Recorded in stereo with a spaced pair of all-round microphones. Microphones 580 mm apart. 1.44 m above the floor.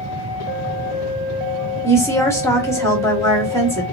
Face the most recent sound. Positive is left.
turn(degrees=5)  # may be behind; listen again after turning